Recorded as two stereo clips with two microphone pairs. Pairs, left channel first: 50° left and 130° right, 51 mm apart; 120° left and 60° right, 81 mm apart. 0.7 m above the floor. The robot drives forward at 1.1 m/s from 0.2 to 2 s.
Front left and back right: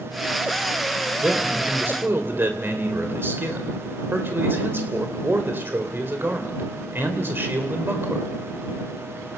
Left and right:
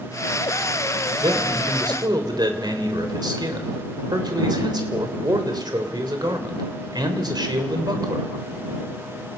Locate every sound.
1.2 s a man speaking: 70° right, 3.5 m; by 8.3 s 85° right, 3.5 m